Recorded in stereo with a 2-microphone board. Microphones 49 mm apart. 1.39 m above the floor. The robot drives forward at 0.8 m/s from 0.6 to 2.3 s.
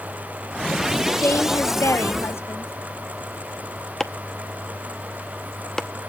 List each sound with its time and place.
1.2 s a woman speaking: 60° left (ahead or behind), 0.9 m; by 2.7 s 55° left (ahead or behind), 1.0 m
4.0 s chopping: 15° left (ahead or behind), 0.8 m